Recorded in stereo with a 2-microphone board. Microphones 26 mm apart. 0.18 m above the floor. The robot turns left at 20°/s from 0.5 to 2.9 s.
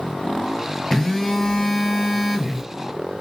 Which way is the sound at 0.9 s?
25° left.